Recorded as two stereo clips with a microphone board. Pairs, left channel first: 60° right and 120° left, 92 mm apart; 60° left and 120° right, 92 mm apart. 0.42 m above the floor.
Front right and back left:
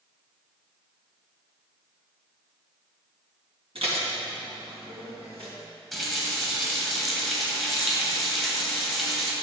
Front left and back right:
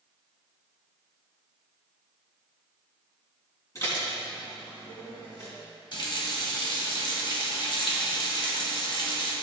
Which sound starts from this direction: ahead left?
A running tap, at 5.9 s.